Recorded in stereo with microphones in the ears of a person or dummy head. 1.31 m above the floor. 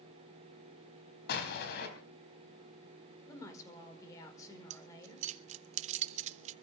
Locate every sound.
1.3 s an explosion: 65° left (ahead or behind), 4 m
3.3 s a woman speaking: 20° left (ahead or behind), 5 m
4.7 s keys jangling: 40° right (ahead or behind), 0.7 m